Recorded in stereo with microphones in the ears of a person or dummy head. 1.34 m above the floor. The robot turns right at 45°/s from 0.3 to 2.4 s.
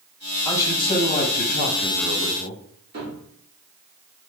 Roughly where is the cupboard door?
Right.